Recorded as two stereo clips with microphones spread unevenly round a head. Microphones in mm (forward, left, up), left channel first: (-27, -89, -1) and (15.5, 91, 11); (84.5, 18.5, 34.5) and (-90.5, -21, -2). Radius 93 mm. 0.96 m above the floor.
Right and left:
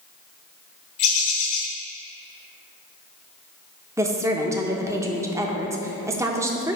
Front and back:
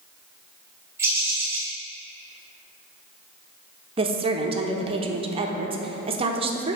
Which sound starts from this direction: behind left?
A woman speaking, at 4.0 s.